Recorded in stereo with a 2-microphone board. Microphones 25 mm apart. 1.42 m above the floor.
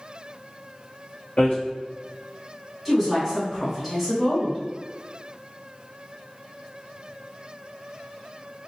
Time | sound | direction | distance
1.4 | hammering | 55° left (ahead or behind) | 1.3 m
2.9 | a woman speaking | 5° right (ahead or behind) | 1.4 m